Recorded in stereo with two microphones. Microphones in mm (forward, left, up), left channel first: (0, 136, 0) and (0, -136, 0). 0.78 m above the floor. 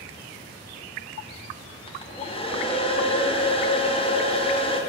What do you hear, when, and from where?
1.9 s a hair dryer: 20° left (ahead or behind), 1.3 m